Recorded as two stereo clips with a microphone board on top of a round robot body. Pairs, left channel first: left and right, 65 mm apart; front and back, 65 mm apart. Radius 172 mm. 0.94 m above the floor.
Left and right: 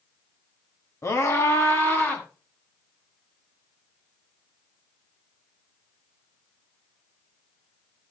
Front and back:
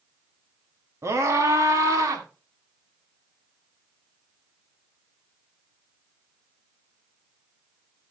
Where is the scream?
135° left, 1.9 m; by 2.2 s 150° left, 2.5 m.